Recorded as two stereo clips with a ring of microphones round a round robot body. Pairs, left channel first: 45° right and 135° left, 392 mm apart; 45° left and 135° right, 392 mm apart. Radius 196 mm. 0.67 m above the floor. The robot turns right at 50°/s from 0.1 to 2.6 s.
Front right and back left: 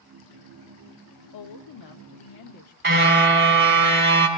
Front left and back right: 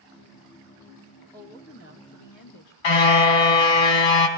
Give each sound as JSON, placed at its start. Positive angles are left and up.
{"t": 1.3, "sound": "a woman speaking", "azimuth_deg": -40, "distance_m": 1.3}
{"t": 2.8, "sound": "a car horn", "azimuth_deg": 70, "distance_m": 3.0}